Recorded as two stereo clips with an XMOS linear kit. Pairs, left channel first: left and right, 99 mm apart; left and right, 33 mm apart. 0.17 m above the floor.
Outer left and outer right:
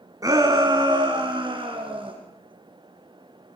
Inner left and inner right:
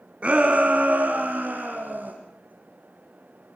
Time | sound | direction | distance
0.2 | a shout | 35° right (ahead or behind) | 1.7 m